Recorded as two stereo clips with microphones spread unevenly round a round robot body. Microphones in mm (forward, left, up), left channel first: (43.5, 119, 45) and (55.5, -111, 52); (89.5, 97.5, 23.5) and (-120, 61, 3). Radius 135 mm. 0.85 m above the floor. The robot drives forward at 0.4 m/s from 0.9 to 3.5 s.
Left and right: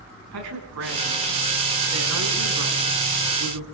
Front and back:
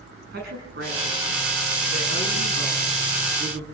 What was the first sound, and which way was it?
A woman speaking, 110° right.